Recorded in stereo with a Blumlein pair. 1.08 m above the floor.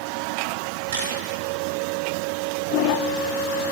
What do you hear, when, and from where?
0.9 s a camera shutter: 60° right, 3.5 m